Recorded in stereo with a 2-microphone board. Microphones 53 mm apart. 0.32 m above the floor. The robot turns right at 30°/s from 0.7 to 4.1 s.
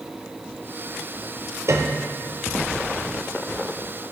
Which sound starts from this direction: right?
A piano, at 1.7 s.